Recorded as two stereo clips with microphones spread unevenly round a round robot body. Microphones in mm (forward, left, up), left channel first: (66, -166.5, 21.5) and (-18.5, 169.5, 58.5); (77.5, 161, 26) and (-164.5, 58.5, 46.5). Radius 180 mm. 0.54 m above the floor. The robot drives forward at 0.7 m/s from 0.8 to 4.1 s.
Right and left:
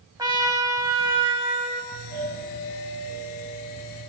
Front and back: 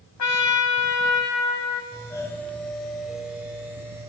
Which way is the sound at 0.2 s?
25° left.